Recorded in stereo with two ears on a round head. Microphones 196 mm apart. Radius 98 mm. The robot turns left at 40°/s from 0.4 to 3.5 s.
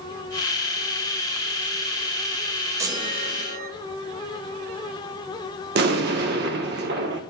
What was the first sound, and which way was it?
A chime, 15° right (ahead or behind).